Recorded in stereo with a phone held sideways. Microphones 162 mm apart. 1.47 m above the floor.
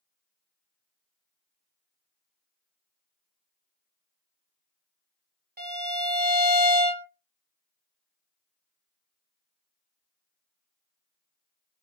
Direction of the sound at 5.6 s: 80° right.